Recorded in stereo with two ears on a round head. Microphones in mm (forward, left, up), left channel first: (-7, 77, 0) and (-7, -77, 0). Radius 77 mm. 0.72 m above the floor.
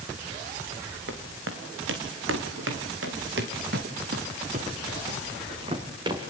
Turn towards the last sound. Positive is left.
turn(degrees=-25)  # may be behind; listen again after turning